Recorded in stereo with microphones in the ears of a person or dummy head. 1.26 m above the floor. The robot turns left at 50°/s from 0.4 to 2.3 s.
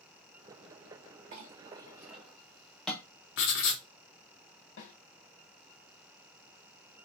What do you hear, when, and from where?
1.3 s a clink: 40° right (ahead or behind), 0.6 m; by 3.0 s 5° left (ahead or behind), 0.6 m
3.4 s writing: 65° left (ahead or behind), 0.6 m
4.8 s a snare drum: 60° left (ahead or behind), 1.1 m